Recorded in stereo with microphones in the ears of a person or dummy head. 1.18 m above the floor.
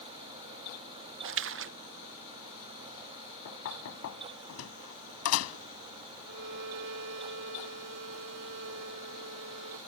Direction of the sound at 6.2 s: 60° right (ahead or behind).